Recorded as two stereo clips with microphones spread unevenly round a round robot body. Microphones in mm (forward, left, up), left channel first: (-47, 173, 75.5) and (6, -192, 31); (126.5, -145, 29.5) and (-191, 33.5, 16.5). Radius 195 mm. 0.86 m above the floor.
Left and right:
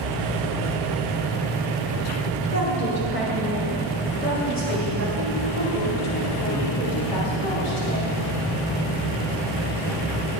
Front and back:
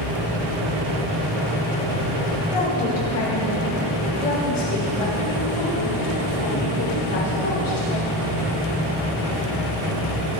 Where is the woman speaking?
45° left, 3.5 m; by 8.1 s 35° left, 8 m.